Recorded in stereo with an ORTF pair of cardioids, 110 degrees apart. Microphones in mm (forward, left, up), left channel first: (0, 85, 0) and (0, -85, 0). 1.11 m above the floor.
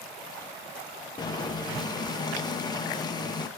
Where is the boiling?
25° left, 0.7 m.